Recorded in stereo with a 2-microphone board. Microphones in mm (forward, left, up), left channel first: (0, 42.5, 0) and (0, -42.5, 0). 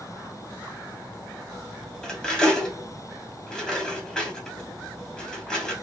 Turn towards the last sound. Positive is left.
turn(degrees=5)  # may be behind; listen again after turning